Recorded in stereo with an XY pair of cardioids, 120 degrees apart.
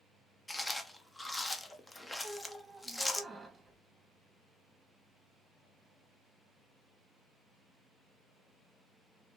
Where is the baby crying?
I don't hear a baby crying.